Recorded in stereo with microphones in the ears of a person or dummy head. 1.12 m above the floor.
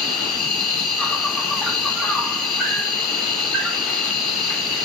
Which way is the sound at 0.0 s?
Centre (ahead or behind).